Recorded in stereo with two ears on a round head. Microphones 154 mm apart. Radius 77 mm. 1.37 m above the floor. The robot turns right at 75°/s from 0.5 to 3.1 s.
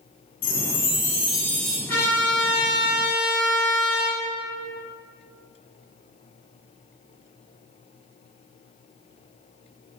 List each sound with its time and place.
0.4 s a chime: 90° left, 0.5 m; by 1.8 s 170° right, 0.5 m
1.9 s a trumpet: 10° left (ahead or behind), 1.2 m; by 4.2 s 25° left (ahead or behind), 1.2 m